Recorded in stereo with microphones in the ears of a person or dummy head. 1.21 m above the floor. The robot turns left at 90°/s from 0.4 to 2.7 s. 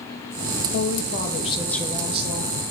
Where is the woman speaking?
100° left, 1.0 m; by 2.5 s 65° right, 1.0 m.